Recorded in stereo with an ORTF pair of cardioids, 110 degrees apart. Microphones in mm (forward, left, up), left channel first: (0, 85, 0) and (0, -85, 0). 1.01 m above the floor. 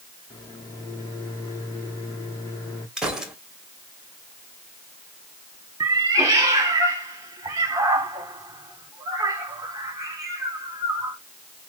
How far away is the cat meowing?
About 1.2 m.